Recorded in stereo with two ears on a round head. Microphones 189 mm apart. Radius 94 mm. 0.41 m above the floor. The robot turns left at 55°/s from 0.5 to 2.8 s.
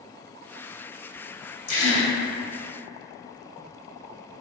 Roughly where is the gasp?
Left.